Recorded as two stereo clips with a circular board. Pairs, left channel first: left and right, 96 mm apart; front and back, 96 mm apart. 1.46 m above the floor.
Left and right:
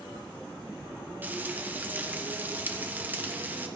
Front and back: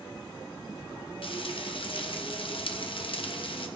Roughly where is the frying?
Ahead.